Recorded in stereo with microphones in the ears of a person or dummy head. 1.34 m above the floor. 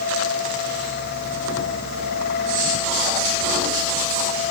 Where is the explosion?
No explosion in this recording.